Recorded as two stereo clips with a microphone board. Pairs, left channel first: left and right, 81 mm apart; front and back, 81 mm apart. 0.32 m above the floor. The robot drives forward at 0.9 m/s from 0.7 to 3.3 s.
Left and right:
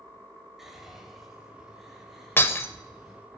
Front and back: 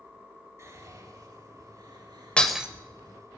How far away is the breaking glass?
About 0.6 m.